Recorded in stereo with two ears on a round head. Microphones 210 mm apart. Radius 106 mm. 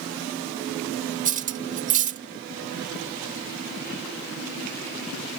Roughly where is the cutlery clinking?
Right.